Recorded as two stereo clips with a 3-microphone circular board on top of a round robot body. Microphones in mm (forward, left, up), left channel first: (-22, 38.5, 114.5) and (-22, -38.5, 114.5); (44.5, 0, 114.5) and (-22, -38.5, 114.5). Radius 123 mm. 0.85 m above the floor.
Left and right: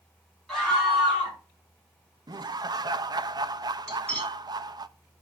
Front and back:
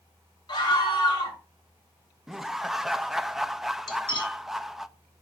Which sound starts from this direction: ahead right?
Laughter, at 2.3 s.